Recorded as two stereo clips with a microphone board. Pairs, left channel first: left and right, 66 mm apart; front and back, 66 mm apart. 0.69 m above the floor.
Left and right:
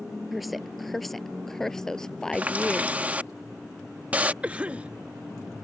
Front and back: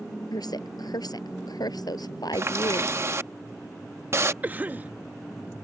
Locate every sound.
0.3 s a woman speaking: straight ahead; by 3.0 s 15° left
2.3 s a running tap: 150° right
4.4 s a cough: 140° right